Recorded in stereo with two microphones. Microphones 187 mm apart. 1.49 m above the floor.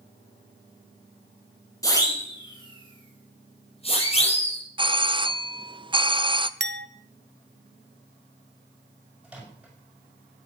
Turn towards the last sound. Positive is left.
turn(degrees=-5)  # may be behind; listen again after turning